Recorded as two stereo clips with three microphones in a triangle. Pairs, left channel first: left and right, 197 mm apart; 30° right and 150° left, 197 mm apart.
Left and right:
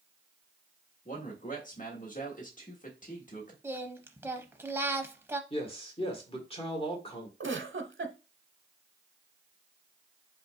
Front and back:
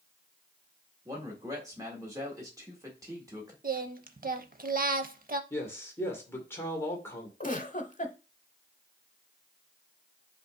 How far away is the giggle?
About 0.7 m.